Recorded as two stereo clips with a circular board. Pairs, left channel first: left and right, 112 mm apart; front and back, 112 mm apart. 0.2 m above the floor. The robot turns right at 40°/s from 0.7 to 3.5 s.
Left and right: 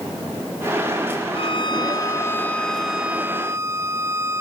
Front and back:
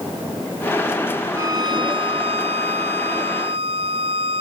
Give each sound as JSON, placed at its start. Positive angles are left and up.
{"t": 1.3, "sound": "a violin", "azimuth_deg": 120}